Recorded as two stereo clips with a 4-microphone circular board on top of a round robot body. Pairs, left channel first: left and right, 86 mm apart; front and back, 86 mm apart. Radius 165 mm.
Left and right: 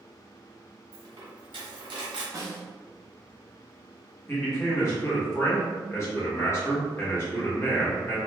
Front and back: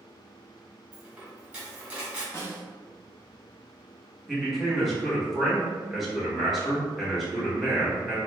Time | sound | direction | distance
0.9 | a dropped coin | 105° right | 1.1 m
2.3 | a snare drum | 50° right | 1.1 m
4.3 | a man speaking | 90° left | 1.3 m